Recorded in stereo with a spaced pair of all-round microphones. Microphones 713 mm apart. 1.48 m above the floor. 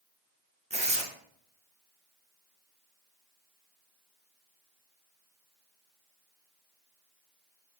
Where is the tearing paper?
10° right (ahead or behind), 0.5 m.